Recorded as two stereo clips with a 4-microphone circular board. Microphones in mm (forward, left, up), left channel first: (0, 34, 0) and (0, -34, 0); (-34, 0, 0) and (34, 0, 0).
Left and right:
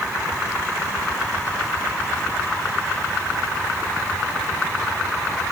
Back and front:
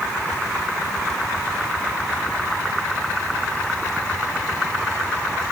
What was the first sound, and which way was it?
Only background noise.